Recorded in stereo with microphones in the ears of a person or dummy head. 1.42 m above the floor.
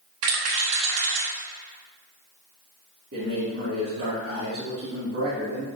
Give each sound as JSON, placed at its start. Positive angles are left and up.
{"t": 0.2, "sound": "a rattle", "side_deg": -70, "distance_m": 3.0}
{"t": 3.1, "sound": "a man speaking", "side_deg": -60, "distance_m": 2.5}